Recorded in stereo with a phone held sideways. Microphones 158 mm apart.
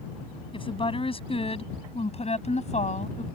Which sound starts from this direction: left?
A woman speaking, at 0.5 s.